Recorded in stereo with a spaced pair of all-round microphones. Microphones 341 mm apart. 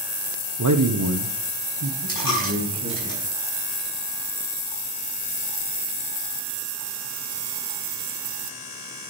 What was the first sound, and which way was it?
A man speaking, 60° right (ahead or behind).